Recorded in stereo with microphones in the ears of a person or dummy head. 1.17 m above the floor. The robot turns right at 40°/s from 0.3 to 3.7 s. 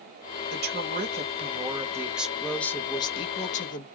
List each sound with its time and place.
0.5 s a woman speaking: 75° right, 0.9 m; by 3.9 s 55° left, 0.9 m